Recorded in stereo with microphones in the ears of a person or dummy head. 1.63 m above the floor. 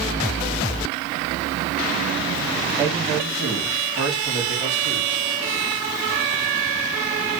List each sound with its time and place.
2.8 s a man speaking: 15° right (ahead or behind), 2.5 m; by 5.3 s 5° left (ahead or behind), 4 m